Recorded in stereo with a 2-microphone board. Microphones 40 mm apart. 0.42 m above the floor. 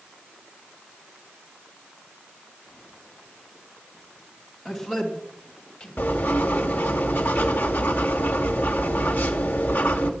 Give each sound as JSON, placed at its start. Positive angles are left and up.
{"t": 4.7, "sound": "a man speaking", "side_deg": 5, "distance_m": 4.0}
{"t": 6.0, "sound": "writing", "side_deg": 50, "distance_m": 1.8}